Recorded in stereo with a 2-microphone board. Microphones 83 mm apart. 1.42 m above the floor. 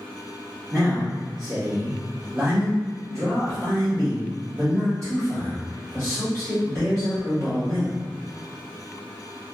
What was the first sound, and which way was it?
A man speaking, 35° right (ahead or behind).